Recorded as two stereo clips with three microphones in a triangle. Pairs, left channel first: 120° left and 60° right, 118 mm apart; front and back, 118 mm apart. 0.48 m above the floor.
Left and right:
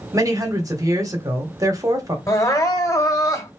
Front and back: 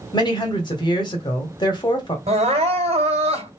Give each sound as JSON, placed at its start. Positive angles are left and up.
{"t": 0.1, "sound": "a woman speaking", "azimuth_deg": -20, "distance_m": 1.4}
{"t": 2.3, "sound": "crying", "azimuth_deg": 180, "distance_m": 1.8}